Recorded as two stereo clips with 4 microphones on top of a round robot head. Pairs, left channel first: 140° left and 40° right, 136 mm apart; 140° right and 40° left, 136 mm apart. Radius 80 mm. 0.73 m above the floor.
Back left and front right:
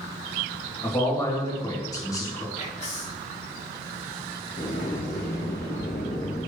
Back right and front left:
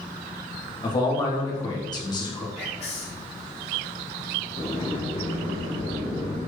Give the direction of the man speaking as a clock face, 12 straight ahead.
6 o'clock.